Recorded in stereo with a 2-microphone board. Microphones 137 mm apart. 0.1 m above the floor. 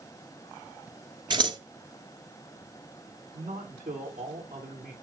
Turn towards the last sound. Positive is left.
turn(degrees=-75)  # may be behind; listen again after turning